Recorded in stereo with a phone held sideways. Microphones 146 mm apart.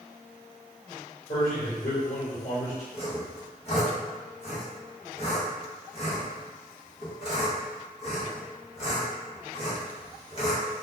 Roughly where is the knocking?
No knocking in this recording.